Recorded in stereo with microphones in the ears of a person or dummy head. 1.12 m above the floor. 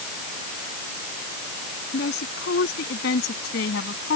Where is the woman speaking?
65° left (ahead or behind); by 4.2 s 70° left (ahead or behind).